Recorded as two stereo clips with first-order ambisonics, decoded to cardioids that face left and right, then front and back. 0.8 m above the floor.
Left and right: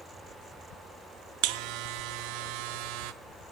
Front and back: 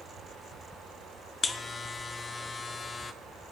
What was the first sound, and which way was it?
A buzzer, 75° right.